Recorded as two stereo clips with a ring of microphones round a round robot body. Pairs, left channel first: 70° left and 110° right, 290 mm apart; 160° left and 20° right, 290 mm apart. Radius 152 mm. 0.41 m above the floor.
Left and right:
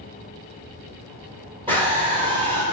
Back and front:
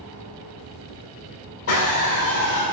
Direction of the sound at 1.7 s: Straight behind.